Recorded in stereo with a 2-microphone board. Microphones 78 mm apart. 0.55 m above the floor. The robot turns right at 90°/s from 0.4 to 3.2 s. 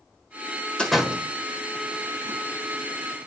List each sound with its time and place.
0.8 s a door slam: 10° left (ahead or behind), 1.4 m; by 2.4 s 45° right (ahead or behind), 1.4 m